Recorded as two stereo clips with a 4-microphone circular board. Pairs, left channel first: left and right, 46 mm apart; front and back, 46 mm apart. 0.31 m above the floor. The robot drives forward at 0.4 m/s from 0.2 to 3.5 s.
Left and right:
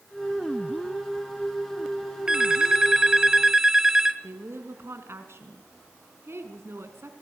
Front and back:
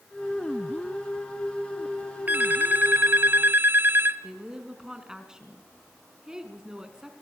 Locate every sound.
2.3 s a phone ringing: 160° right, 1.2 m; by 4.2 s 165° right, 1.6 m
4.2 s a woman speaking: 105° right, 3 m